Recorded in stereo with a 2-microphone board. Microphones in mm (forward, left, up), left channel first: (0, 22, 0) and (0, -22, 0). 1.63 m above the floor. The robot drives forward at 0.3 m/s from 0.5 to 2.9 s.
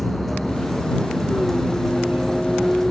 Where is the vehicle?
5° left (ahead or behind).